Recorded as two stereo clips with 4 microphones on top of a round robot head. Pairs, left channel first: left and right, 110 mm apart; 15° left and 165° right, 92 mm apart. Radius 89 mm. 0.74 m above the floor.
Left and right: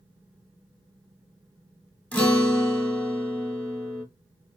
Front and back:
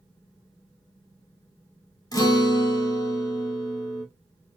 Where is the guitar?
20° left, 1.2 m.